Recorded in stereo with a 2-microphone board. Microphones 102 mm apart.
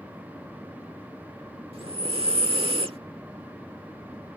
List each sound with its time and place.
1.7 s breathing: 70° right (ahead or behind)